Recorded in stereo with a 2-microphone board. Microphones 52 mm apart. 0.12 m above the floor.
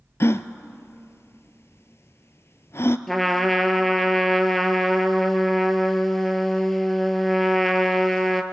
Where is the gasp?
55° left (ahead or behind), 0.6 m.